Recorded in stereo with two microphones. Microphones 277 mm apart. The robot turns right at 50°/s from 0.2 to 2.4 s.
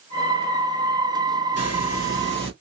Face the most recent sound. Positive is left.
turn(degrees=140)